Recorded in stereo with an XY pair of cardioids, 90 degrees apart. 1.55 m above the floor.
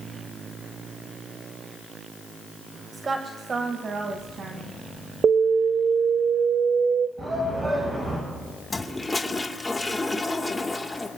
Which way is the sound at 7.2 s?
40° right.